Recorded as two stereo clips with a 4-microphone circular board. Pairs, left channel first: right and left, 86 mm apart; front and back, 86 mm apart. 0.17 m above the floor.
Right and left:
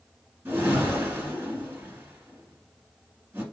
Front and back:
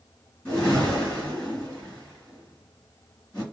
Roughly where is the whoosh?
Ahead left.